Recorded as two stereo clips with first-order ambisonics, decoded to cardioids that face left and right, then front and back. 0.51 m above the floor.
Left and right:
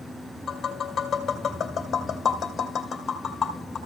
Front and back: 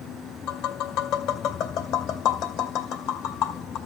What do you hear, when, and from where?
0.5 s tapping: 20° left, 2 m